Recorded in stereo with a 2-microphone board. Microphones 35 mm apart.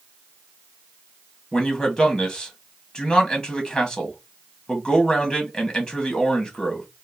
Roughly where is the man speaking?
Centre.